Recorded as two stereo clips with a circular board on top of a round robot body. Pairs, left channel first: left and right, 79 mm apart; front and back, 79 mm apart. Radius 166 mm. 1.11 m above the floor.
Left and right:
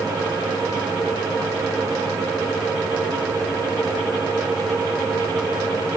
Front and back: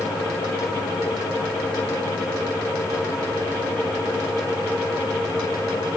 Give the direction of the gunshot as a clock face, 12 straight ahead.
No gunshot in this recording.